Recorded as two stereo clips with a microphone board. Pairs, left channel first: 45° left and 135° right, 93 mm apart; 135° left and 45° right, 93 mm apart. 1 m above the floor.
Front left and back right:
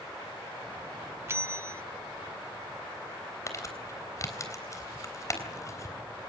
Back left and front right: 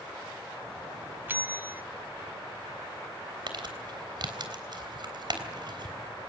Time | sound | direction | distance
1.3 | a bell | 95° right | 0.6 m
3.5 | crumpling | 10° right | 3.5 m